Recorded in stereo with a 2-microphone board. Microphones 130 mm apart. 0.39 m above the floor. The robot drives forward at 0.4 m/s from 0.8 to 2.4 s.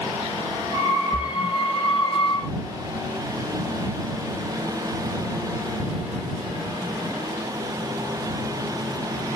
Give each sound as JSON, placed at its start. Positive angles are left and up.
{"t": 1.1, "sound": "a splash", "side_deg": 25, "distance_m": 1.0}